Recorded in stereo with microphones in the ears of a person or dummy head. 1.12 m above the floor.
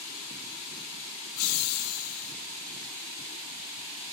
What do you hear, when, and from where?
1.4 s laughter: 75° left (ahead or behind), 1.0 m